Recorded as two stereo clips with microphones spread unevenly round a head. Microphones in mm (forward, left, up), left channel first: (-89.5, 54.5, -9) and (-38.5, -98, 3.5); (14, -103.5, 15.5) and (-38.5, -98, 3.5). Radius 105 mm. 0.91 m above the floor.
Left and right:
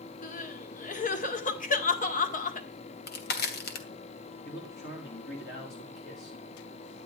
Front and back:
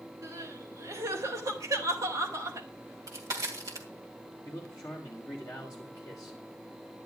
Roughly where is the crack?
Behind left.